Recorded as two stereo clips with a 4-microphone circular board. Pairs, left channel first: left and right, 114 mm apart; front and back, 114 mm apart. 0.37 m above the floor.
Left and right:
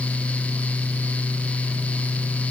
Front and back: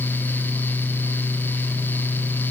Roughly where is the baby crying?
I don't hear a baby crying.